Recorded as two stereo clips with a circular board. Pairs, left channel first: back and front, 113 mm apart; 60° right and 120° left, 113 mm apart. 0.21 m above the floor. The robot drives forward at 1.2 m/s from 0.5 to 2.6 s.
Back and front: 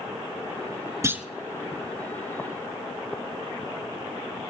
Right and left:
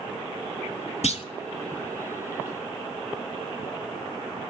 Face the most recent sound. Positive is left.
turn(degrees=-160)